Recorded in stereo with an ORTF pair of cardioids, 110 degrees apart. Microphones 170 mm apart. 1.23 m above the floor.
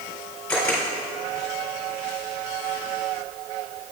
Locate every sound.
0.5 s a camera shutter: 10° left, 2.5 m